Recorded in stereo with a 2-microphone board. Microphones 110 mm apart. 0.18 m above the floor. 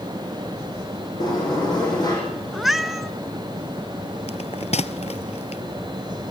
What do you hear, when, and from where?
1.2 s a sliding door: 40° left (ahead or behind), 8.5 m
2.5 s a cat meowing: centre (ahead or behind), 1.1 m
4.3 s a bell: 75° left (ahead or behind), 0.9 m